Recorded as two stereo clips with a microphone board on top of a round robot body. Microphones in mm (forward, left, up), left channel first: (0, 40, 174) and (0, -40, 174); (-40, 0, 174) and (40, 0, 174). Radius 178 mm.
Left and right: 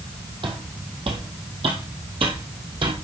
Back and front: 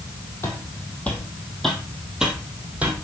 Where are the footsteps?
115° right, 1.6 m; by 2.9 s 70° right, 2.0 m.